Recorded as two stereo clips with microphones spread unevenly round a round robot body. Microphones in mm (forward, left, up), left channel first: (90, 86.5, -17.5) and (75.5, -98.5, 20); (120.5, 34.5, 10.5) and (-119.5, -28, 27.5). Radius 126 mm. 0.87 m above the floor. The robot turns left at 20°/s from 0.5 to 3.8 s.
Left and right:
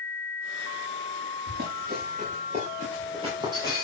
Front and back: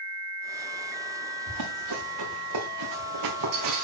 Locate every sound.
1.5 s running footsteps: 145° right, 5 m; by 3.8 s 170° right, 5 m